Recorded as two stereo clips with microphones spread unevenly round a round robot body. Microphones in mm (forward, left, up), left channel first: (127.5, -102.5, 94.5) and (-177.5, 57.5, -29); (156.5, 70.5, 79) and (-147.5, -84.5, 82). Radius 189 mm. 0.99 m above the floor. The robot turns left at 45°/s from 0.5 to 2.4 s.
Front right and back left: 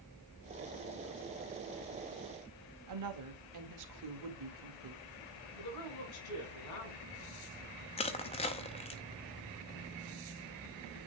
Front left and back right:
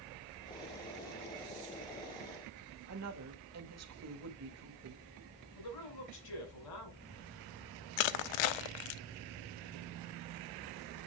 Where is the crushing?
40° left, 0.6 m.